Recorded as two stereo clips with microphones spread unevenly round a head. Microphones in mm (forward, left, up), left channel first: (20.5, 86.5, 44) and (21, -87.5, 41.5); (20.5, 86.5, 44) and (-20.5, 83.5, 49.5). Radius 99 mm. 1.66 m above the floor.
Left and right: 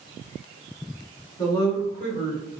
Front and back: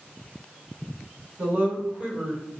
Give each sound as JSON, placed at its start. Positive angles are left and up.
{"t": 1.4, "sound": "a woman speaking", "azimuth_deg": 165, "distance_m": 1.2}